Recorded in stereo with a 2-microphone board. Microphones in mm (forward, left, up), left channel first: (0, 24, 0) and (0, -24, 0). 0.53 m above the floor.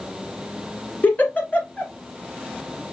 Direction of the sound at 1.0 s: 35° left (ahead or behind).